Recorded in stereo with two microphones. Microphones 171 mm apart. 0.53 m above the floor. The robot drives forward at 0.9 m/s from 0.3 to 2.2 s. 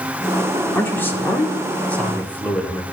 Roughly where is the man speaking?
Centre.